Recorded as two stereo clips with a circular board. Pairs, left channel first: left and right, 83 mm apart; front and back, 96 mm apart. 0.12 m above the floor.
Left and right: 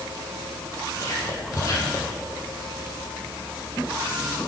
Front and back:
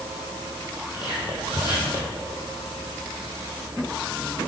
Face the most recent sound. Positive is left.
turn(degrees=40)